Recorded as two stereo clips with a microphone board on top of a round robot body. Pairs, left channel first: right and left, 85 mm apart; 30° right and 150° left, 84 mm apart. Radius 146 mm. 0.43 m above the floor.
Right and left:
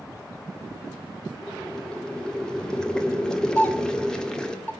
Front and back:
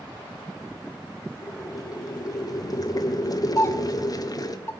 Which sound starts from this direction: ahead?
Boiling, at 1.4 s.